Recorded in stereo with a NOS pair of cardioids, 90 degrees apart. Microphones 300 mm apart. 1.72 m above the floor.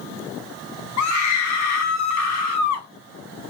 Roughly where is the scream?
Ahead left.